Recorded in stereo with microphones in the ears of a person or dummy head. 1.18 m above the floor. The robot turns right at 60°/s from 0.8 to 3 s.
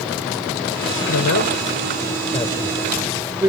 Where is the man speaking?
80° left; by 3.5 s 15° right (ahead or behind).